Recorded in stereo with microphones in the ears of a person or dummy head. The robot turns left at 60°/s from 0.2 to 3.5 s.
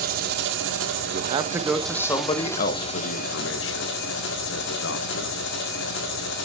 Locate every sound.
0.0 s an engine running: 55° right, 2.0 m; by 6.5 s 105° left, 2.0 m
1.1 s a man speaking: 40° right (ahead or behind), 0.9 m; by 5.4 s 80° left, 0.9 m